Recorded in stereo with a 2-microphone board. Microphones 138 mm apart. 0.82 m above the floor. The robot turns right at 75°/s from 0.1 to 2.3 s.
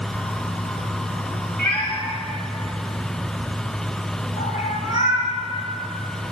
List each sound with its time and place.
1.6 s a cat meowing: 15° left (ahead or behind), 2 m; by 5.3 s 70° left (ahead or behind), 2 m